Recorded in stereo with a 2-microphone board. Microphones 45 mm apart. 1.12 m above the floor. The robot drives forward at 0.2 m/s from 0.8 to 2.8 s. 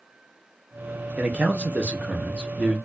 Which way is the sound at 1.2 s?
30° right (ahead or behind).